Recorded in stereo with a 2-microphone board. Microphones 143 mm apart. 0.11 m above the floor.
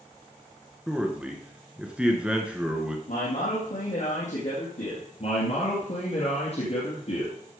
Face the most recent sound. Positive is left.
turn(degrees=50)  # may be behind; listen again after turning